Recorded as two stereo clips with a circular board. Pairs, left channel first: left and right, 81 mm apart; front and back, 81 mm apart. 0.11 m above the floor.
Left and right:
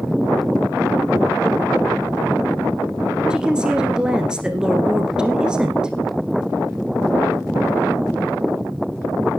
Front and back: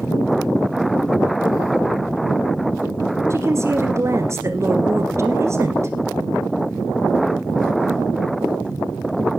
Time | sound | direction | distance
3.3 | a woman speaking | 165° right | 1.6 m